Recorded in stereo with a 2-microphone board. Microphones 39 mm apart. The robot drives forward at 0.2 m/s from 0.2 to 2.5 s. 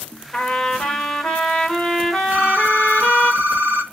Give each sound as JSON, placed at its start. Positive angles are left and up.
{"t": 0.3, "sound": "a trumpet", "side_deg": 20, "distance_m": 1.4}
{"t": 2.3, "sound": "a phone ringing", "side_deg": -45, "distance_m": 1.1}